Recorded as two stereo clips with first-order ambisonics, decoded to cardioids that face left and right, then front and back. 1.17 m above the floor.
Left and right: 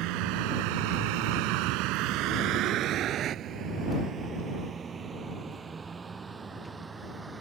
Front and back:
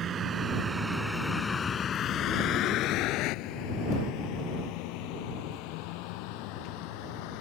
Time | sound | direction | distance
0.0 | a vehicle | 120° right | ?